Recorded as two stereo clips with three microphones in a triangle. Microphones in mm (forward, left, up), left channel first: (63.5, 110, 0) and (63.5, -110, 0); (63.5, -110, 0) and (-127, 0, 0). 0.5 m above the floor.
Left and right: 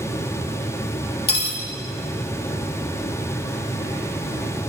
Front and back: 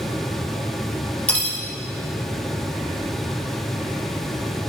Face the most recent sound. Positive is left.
turn(degrees=50)